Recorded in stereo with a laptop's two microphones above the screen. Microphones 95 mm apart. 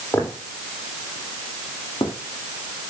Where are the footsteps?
30° left (ahead or behind), 3 m; by 2.1 s 65° left (ahead or behind), 3 m.